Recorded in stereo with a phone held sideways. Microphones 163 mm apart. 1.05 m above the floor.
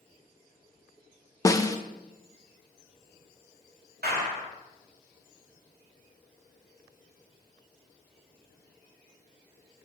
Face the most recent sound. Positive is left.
turn(degrees=-80)